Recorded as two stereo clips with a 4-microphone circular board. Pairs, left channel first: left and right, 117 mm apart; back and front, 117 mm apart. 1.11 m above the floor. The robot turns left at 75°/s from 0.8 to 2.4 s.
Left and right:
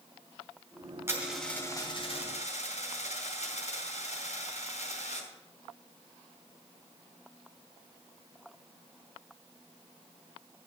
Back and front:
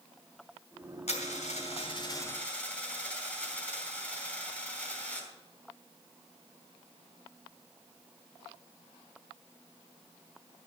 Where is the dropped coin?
160° right, 3.5 m; by 5.3 s 100° left, 3.5 m.